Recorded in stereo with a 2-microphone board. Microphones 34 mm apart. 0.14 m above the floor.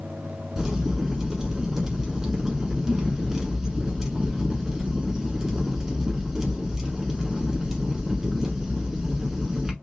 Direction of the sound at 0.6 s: 15° right (ahead or behind).